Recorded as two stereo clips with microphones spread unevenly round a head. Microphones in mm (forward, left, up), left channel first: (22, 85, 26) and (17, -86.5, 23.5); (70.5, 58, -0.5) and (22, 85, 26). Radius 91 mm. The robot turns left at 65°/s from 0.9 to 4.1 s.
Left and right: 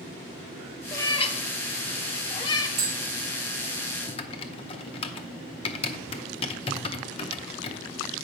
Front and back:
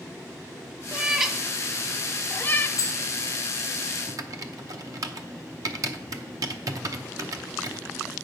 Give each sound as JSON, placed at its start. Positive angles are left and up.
{"t": 0.9, "sound": "a cat meowing", "azimuth_deg": 145, "distance_m": 0.7}
{"t": 2.8, "sound": "tapping", "azimuth_deg": -50, "distance_m": 3.5}
{"t": 4.1, "sound": "typing on a keyboard", "azimuth_deg": 150, "distance_m": 0.7}